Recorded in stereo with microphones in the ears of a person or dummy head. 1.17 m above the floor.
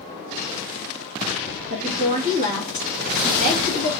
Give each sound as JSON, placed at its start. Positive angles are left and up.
{"t": 1.7, "sound": "a woman speaking", "side_deg": -35, "distance_m": 1.8}